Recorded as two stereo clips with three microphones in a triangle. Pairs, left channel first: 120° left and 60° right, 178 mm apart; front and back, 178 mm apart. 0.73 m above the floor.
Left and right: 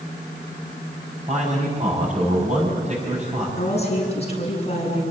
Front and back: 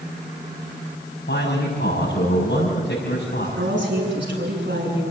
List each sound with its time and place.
1.3 s a man speaking: 10° right, 6 m
3.6 s a woman speaking: 175° left, 8 m